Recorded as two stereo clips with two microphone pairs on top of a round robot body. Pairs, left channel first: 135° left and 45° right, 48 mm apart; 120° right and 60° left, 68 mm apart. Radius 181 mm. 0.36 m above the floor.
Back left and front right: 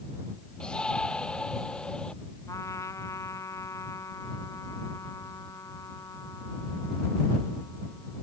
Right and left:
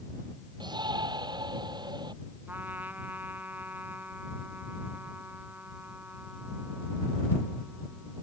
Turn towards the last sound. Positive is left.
turn(degrees=125)